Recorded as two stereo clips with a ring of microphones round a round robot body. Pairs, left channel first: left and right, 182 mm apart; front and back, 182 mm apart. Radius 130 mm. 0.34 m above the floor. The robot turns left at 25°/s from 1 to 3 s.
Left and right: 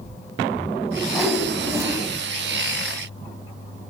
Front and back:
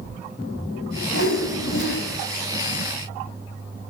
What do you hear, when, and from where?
1.1 s a whoosh: straight ahead, 3.5 m; by 2.0 s 20° right, 3.5 m